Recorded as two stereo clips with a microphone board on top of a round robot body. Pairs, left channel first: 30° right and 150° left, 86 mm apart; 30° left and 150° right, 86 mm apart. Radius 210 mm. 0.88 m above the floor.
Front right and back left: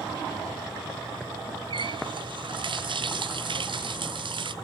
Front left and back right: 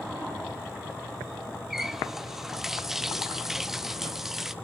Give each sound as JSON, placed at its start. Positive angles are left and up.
{"t": 1.7, "sound": "a running tap", "azimuth_deg": 125, "distance_m": 1.0}